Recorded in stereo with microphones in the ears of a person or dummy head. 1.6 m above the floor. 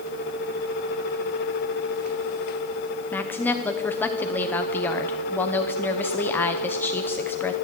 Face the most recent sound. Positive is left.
turn(degrees=10)  # may be behind; listen again after turning